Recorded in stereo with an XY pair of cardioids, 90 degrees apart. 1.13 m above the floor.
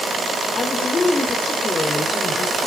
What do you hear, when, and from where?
0.6 s a woman speaking: 30° left, 3.5 m